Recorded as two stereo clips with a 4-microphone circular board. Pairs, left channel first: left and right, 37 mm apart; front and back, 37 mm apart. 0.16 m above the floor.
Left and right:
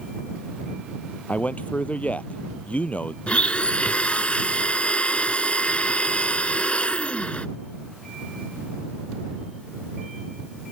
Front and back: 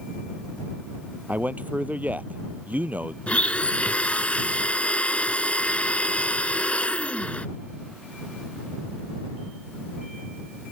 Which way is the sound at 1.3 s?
135° left.